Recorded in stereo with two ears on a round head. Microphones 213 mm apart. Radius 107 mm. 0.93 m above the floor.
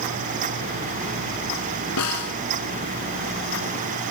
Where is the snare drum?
80° left.